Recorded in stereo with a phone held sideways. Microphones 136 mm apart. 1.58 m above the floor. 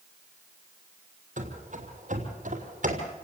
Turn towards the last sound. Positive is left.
turn(degrees=-60)  # may be behind; listen again after turning